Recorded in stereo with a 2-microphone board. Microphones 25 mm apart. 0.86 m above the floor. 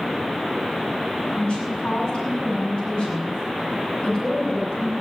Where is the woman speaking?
50° left (ahead or behind), 6.5 m.